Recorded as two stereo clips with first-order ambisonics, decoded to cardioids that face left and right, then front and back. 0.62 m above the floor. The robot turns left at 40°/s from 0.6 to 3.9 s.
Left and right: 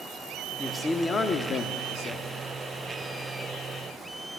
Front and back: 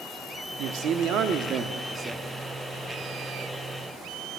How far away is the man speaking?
About 0.9 m.